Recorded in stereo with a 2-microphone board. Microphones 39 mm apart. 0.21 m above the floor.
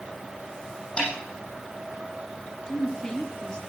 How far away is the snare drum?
About 7 m.